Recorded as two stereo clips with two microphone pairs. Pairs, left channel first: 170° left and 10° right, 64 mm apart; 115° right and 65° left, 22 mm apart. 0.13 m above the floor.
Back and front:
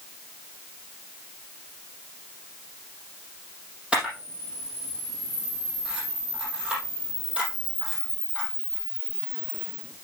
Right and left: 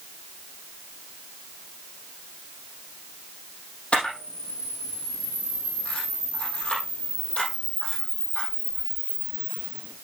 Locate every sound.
3.9 s a camera shutter: 85° right, 5 m